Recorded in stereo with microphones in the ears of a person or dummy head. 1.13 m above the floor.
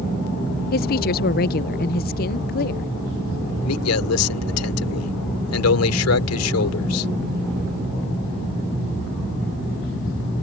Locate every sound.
0.7 s a woman speaking: 50° left (ahead or behind)
3.6 s a man speaking: 90° left